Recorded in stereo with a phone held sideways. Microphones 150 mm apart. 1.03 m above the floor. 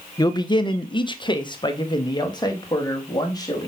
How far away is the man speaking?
About 0.7 m.